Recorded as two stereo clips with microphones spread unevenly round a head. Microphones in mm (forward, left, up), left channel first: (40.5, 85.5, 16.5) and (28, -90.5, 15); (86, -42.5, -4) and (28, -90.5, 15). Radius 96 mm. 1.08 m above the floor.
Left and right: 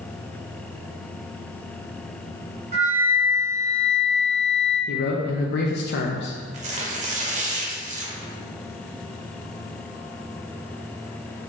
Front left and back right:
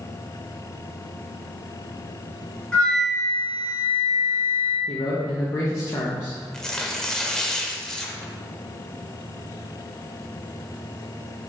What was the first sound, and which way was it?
A flute, 45° right.